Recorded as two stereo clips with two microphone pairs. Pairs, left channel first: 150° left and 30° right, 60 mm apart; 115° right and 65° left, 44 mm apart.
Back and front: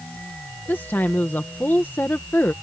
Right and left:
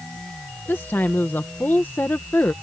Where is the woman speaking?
155° right.